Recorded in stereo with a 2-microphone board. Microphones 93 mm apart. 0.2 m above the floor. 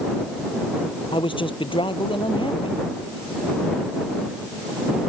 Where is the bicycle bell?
No bicycle bell in this recording.